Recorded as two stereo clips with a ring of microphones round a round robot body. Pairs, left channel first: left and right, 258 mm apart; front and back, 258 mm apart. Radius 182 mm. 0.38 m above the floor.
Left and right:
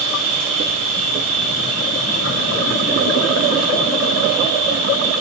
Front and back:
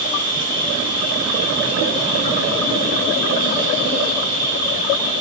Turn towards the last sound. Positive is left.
turn(degrees=-145)